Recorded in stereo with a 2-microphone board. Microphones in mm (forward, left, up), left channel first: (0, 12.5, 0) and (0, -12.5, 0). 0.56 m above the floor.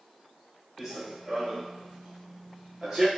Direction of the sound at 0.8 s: 20° right (ahead or behind).